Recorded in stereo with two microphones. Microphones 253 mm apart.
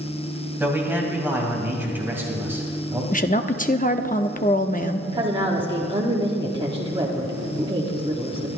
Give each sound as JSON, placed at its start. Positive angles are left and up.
{"t": 0.6, "sound": "a man speaking", "side_deg": -10, "distance_m": 3.5}
{"t": 3.1, "sound": "a woman speaking", "side_deg": 30, "distance_m": 0.7}
{"t": 5.1, "sound": "a woman speaking", "side_deg": -20, "distance_m": 1.4}